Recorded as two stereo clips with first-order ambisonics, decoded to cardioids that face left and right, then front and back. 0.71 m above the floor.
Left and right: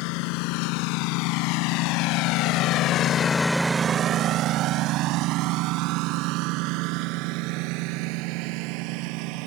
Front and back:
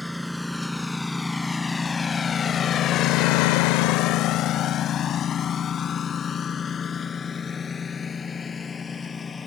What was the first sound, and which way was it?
A lawn mower, 90° left.